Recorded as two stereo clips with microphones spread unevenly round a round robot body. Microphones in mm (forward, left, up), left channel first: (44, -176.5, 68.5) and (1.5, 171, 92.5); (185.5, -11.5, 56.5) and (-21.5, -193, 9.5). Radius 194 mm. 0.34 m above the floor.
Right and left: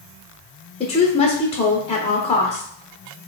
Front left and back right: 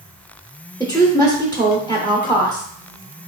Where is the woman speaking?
40° right, 1.1 m.